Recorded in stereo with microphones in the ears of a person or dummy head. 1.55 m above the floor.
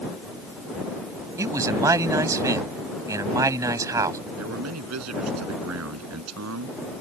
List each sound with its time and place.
1.4 s a man speaking: 15° right (ahead or behind)
4.4 s a man speaking: 85° right